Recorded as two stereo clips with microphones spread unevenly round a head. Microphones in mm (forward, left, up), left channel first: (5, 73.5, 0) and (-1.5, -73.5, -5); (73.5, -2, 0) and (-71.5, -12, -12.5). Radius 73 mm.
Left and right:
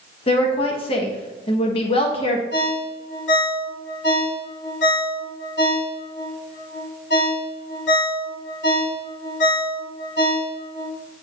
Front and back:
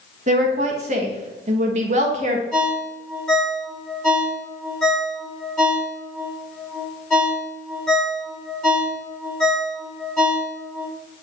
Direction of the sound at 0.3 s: 140° left.